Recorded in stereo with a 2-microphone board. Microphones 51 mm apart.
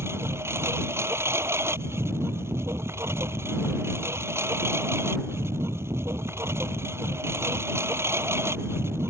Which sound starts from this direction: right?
A lawn mower, at 0.0 s.